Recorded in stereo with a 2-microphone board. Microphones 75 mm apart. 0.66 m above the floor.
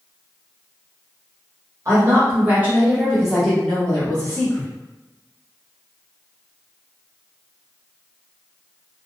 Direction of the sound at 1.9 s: 35° right (ahead or behind).